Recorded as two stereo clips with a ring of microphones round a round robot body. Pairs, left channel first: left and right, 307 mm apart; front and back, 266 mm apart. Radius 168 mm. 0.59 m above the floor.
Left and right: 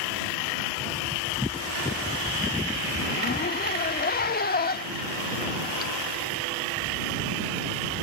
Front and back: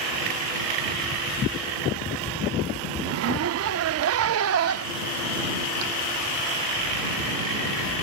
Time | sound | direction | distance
3.0 | a zipper | 150° left | ?